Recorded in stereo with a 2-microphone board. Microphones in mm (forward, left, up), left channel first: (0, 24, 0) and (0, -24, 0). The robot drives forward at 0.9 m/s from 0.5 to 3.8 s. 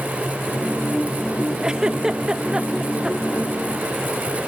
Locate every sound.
1.6 s a giggle: 20° right (ahead or behind); by 3.4 s 15° right (ahead or behind)